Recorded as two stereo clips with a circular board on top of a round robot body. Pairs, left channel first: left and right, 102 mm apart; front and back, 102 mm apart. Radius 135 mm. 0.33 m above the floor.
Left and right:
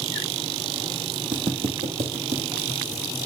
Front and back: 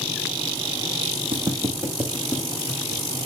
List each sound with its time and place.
1.3 s footsteps: 135° right, 1.4 m; by 3.0 s 80° right, 1.9 m